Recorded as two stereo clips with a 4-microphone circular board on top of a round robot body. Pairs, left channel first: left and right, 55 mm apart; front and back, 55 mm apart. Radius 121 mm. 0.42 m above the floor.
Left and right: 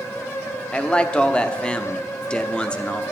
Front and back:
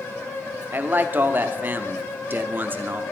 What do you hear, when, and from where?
0.7 s a man speaking: 150° left, 1.0 m